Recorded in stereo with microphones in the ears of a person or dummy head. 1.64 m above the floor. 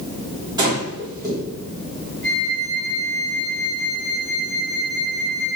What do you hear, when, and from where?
0.6 s breathing: 20° right (ahead or behind), 3 m
2.2 s a flute: 70° left (ahead or behind), 2 m